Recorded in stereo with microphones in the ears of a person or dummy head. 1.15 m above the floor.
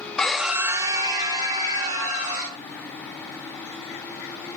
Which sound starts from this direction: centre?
A scream, at 0.2 s.